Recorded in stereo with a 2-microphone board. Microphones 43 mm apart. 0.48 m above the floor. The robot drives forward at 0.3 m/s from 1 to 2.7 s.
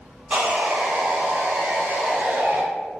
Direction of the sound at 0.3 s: 35° right (ahead or behind).